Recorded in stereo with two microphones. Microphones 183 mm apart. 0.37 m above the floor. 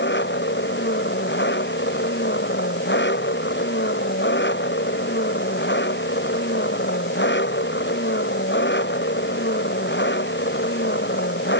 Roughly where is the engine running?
Left.